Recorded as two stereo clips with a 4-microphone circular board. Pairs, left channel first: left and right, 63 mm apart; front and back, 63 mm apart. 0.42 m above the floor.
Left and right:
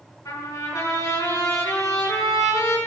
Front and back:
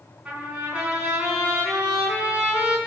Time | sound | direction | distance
0.2 | a trumpet | 110° left | 4.5 m